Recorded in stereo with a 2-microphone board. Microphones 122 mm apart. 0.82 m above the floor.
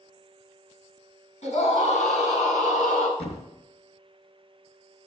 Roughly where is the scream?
Left.